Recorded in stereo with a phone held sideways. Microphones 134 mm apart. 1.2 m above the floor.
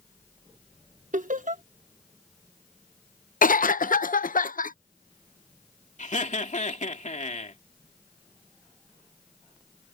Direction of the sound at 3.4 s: 85° left.